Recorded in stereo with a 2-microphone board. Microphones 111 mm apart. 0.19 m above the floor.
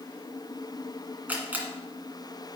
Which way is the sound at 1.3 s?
15° right (ahead or behind).